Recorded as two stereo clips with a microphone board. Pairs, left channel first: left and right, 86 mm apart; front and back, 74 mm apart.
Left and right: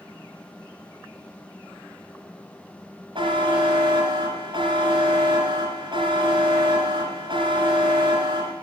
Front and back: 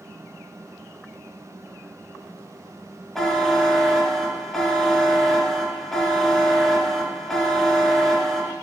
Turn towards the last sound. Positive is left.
turn(degrees=-85)